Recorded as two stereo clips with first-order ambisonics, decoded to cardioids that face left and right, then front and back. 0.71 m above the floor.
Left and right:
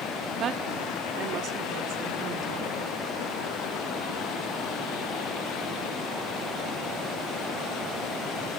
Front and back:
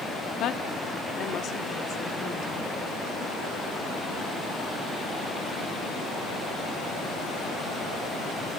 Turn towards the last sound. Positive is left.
turn(degrees=-50)